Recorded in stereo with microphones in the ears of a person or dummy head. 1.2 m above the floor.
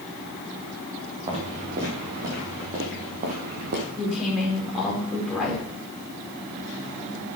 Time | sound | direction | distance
1.3 | footsteps | 30° right (ahead or behind) | 3.5 m
4.0 | a woman speaking | 5° left (ahead or behind) | 4.5 m